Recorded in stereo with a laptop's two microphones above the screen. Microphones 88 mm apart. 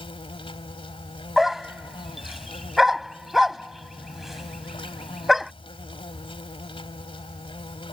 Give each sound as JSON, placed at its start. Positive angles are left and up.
{"t": 0.0, "sound": "an insect", "side_deg": 85}
{"t": 1.4, "sound": "a dog barking", "side_deg": -5}